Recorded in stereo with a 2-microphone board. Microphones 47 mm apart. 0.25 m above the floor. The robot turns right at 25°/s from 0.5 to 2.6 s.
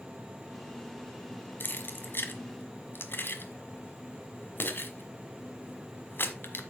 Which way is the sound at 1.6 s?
45° left (ahead or behind).